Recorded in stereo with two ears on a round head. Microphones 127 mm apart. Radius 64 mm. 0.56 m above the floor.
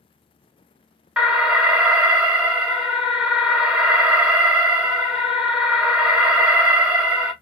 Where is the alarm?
5° right (ahead or behind), 0.7 m.